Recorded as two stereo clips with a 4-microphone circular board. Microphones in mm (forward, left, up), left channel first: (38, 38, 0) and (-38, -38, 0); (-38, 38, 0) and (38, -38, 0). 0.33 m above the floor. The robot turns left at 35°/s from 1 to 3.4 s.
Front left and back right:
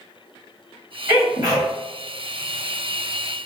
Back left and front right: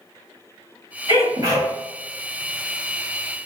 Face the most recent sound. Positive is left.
turn(degrees=-160)